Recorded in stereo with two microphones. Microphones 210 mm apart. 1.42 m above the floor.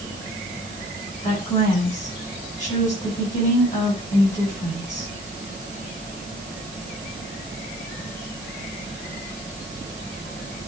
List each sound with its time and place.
1.2 s a woman speaking: 40° left (ahead or behind), 8.5 m